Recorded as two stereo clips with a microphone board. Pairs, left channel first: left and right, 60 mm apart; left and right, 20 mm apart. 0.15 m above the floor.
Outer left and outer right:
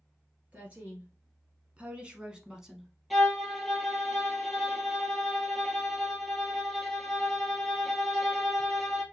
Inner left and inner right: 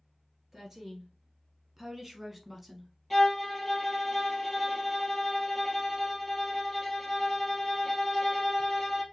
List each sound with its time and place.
0.5 s a woman speaking: 25° right (ahead or behind), 2 m; by 2.9 s 5° right (ahead or behind), 1.1 m
3.1 s a violin: centre (ahead or behind), 1.6 m